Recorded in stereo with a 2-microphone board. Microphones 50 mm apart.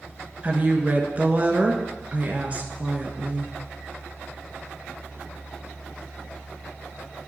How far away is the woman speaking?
About 1.4 m.